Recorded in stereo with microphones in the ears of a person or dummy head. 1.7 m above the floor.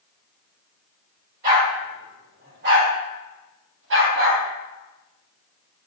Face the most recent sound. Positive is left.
turn(degrees=-70)  # may be behind; listen again after turning